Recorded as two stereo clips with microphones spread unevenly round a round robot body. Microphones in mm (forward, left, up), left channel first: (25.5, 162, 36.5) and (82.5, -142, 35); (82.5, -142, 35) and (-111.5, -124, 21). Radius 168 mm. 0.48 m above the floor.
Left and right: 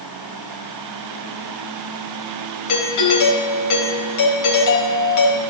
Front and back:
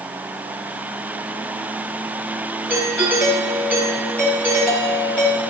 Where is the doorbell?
80° left, 4 m.